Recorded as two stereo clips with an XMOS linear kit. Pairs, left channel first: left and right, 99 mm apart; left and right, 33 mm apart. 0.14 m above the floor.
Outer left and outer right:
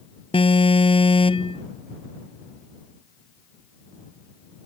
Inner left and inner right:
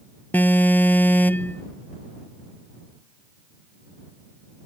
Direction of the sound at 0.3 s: 65° left (ahead or behind).